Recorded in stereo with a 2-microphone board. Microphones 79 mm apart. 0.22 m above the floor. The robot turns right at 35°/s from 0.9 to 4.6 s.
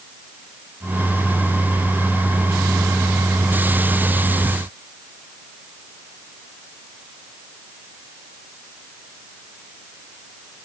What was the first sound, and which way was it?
Only background noise.